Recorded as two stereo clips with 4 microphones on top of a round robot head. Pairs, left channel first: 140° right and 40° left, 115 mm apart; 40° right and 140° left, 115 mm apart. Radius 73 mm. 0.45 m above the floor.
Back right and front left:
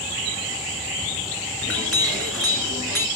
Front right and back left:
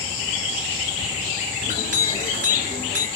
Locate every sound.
1.6 s a clink: 130° left, 3 m